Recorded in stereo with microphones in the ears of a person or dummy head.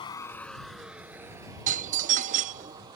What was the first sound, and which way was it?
A vehicle, 25° left (ahead or behind).